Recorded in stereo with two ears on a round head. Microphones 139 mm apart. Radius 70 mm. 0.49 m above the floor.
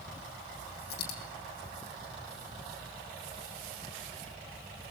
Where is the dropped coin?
75° left (ahead or behind), 6.5 m.